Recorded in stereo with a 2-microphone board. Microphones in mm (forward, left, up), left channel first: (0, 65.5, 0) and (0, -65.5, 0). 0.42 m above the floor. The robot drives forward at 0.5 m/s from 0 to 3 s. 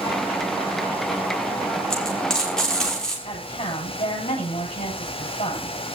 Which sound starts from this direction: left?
A woman speaking, at 3.2 s.